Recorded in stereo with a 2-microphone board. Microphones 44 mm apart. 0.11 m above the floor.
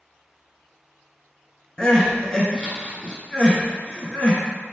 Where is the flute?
No flute in this recording.